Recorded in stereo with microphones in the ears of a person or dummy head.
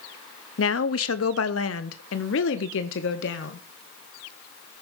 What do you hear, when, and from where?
0.6 s a woman speaking: 65° left (ahead or behind), 0.9 m; by 3.6 s 70° left (ahead or behind), 2 m